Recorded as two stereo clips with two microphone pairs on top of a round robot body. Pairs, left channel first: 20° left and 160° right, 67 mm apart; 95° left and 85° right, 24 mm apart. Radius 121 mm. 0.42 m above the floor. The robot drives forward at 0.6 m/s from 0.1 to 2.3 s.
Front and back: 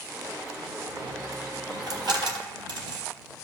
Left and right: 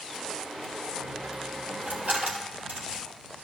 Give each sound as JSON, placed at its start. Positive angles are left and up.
{"t": 1.0, "sound": "a dropped coin", "azimuth_deg": -115, "distance_m": 1.0}